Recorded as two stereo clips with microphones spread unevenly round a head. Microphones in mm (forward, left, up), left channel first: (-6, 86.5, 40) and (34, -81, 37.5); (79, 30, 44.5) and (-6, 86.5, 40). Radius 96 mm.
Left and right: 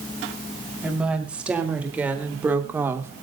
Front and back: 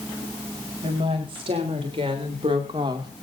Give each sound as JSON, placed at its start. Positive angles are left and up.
{"t": 0.8, "sound": "a woman speaking", "azimuth_deg": -160, "distance_m": 5.0}